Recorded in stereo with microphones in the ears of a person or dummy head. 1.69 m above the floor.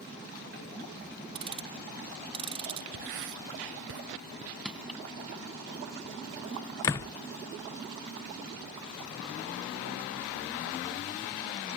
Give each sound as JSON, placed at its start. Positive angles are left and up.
{"t": 1.4, "sound": "ticking", "side_deg": -25}
{"t": 2.9, "sound": "writing", "side_deg": -65}
{"t": 4.7, "sound": "crushing", "side_deg": -5}
{"t": 6.8, "sound": "a door slam", "side_deg": 15}